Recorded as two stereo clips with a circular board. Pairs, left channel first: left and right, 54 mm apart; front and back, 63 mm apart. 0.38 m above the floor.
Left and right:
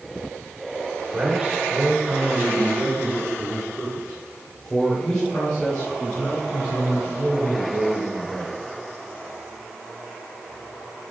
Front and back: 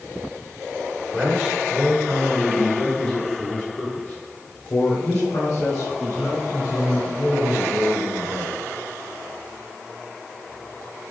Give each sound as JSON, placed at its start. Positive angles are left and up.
{"t": 1.1, "sound": "a man speaking", "azimuth_deg": -120, "distance_m": 1.7}